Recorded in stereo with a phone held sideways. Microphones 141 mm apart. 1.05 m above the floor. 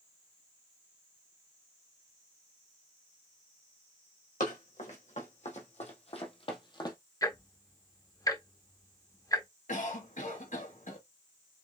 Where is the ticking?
25° left (ahead or behind), 0.6 m.